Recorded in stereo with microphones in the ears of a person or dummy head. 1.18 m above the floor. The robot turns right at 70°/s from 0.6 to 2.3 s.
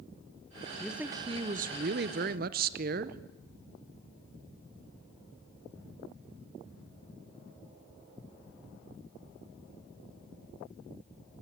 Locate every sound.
0.8 s a man speaking: 175° left, 0.7 m; by 3.2 s 80° right, 0.7 m